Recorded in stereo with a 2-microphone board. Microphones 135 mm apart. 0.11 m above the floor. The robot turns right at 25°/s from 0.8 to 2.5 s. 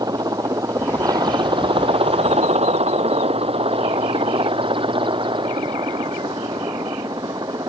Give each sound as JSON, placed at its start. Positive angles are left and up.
{"t": 0.0, "sound": "a helicopter", "side_deg": -30}